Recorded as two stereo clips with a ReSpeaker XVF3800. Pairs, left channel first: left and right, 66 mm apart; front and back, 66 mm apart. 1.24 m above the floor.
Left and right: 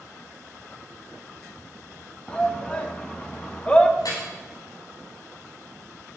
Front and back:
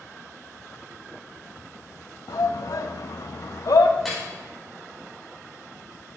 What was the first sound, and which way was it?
A shout, 15° left.